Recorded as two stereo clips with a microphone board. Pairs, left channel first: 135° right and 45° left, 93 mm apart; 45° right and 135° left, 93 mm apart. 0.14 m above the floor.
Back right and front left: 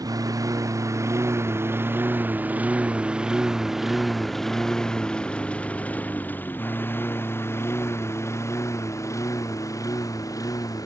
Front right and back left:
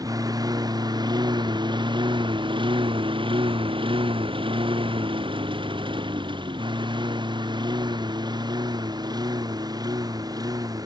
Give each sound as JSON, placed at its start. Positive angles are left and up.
{"t": 0.0, "sound": "a lawn mower", "azimuth_deg": 90}